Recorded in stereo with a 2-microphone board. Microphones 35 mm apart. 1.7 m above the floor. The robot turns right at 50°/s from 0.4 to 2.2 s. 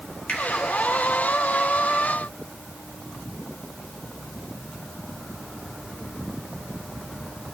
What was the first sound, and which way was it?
A finger snap, 45° left (ahead or behind).